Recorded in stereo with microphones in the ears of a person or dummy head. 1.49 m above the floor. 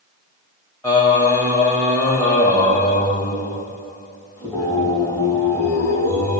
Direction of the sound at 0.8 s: 15° left (ahead or behind).